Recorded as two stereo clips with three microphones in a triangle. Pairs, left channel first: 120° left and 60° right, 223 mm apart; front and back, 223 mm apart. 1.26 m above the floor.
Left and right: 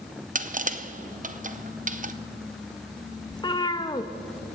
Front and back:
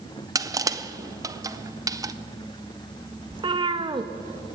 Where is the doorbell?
No doorbell in this recording.